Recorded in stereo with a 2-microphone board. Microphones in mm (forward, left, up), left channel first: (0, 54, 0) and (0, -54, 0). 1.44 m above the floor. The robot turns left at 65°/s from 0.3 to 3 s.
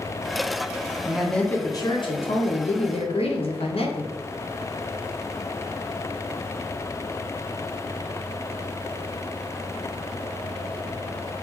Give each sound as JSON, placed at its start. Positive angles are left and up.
{"t": 1.1, "sound": "a woman speaking", "azimuth_deg": -170, "distance_m": 0.8}